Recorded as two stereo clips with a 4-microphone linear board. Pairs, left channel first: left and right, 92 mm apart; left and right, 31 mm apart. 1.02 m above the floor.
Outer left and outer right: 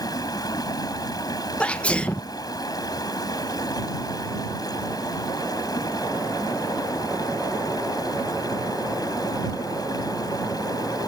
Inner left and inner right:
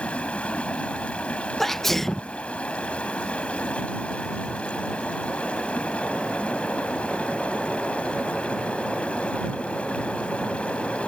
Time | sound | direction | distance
0.0 | running water | 45° left (ahead or behind) | ?
1.6 | a sneeze | 10° left (ahead or behind) | ?